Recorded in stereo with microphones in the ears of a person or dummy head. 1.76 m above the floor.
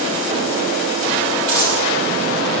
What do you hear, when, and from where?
1.5 s a dropped coin: 10° right (ahead or behind), 6.5 m